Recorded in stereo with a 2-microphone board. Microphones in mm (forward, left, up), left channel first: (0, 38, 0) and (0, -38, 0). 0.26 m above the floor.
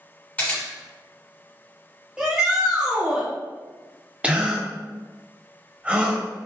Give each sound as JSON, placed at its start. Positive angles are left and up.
{"t": 0.4, "sound": "a camera shutter", "side_deg": 20, "distance_m": 1.8}
{"t": 2.2, "sound": "a shout", "side_deg": -10, "distance_m": 1.0}
{"t": 4.2, "sound": "a gasp", "side_deg": -15, "distance_m": 0.6}